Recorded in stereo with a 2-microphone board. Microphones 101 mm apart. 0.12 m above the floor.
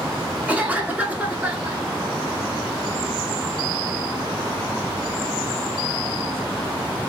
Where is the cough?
15° right (ahead or behind), 1.2 m.